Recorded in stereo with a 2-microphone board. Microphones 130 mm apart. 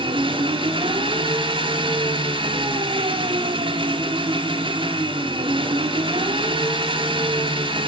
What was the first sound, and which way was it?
An engine running, 40° right (ahead or behind).